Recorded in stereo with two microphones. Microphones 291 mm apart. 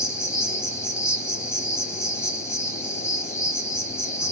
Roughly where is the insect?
Centre.